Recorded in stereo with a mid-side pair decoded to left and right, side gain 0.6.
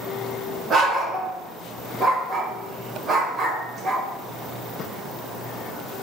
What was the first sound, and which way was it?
A dog barking, 40° right.